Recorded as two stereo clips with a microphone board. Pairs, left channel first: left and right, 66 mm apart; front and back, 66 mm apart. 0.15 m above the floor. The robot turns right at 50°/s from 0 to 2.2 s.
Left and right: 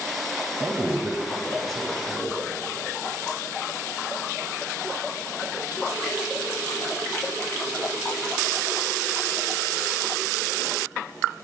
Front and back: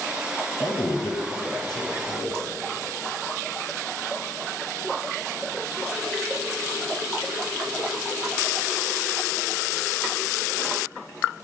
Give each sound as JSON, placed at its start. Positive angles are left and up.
{"t": 0.6, "sound": "a man speaking", "azimuth_deg": -55, "distance_m": 3.0}